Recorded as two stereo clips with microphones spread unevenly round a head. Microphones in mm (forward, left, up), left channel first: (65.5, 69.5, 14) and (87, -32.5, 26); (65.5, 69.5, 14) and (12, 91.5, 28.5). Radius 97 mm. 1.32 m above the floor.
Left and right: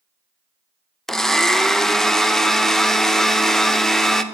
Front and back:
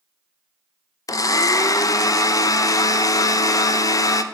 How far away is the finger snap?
I don't hear a finger snap.